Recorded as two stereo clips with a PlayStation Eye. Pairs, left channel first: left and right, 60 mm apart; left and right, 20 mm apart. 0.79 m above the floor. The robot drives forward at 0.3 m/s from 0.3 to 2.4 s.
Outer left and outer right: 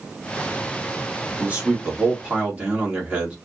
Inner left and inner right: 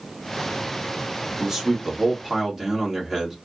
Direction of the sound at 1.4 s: 25° right (ahead or behind).